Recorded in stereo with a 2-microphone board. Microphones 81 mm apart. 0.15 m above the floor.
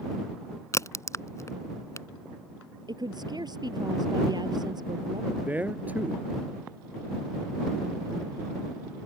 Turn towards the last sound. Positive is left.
turn(degrees=-20)  # may be behind; listen again after turning